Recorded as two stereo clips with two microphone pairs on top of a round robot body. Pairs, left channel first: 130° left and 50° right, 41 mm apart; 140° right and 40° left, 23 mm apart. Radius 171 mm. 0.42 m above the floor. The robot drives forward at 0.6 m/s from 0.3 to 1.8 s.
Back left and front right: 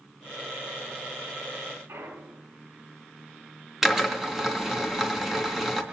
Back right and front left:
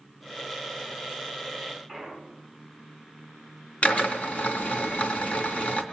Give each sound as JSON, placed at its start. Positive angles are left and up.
{"t": 1.9, "sound": "a clunk", "azimuth_deg": -65, "distance_m": 8.0}
{"t": 3.8, "sound": "a drill", "azimuth_deg": -130, "distance_m": 3.0}